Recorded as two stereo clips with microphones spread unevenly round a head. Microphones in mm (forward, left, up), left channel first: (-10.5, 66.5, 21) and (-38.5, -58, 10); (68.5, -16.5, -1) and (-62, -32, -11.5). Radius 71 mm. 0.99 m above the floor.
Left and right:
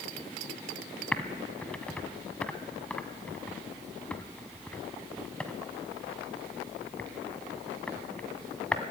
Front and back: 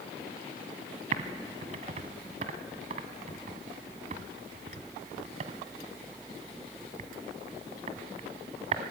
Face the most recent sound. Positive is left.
turn(degrees=155)